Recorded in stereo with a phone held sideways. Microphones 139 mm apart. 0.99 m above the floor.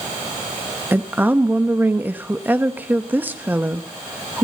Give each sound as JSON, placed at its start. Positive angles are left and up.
{"t": 0.9, "sound": "a woman speaking", "side_deg": -15, "distance_m": 0.9}